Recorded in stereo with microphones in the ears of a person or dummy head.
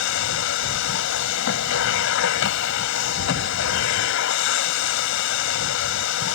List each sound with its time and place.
0.0 s a machine running: 70° left (ahead or behind)